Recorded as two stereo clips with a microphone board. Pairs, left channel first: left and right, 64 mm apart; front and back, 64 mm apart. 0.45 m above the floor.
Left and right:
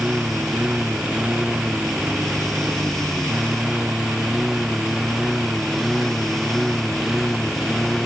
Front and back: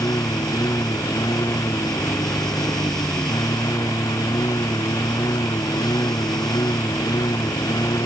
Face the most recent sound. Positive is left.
turn(degrees=-5)